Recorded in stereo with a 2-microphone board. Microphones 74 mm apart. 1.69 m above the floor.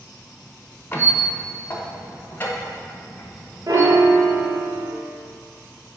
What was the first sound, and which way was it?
A squeak, 30° left (ahead or behind).